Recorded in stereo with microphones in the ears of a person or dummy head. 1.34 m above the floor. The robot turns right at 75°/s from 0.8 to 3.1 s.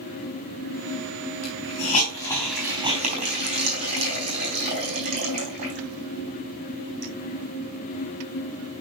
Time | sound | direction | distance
1.4 | a hiss | 75° left (ahead or behind) | 4 m